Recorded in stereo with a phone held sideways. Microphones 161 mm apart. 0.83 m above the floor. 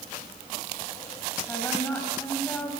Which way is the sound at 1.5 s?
10° left (ahead or behind).